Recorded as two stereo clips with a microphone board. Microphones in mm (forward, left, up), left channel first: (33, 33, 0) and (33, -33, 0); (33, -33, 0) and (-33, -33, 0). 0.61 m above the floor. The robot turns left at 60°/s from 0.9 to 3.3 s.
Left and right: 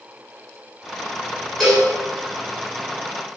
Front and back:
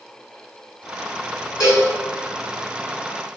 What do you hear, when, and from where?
1.6 s a cowbell: straight ahead, 2 m; by 1.9 s 15° right, 2 m